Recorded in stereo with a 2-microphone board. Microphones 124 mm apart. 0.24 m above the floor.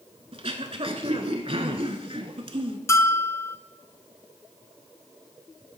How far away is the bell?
About 0.5 m.